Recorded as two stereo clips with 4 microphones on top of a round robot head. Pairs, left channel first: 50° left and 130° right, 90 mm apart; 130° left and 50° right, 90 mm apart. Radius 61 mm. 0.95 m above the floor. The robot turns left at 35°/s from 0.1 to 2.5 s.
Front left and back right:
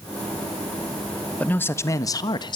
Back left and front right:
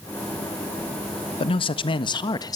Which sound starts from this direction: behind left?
A man speaking, at 1.4 s.